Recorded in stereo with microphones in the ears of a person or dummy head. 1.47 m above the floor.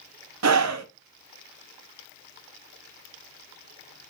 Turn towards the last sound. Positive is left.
turn(degrees=-75)  # may be behind; listen again after turning